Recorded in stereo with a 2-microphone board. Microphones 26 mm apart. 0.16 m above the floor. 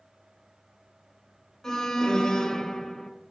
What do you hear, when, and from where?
1.6 s an alarm: 25° left (ahead or behind), 2 m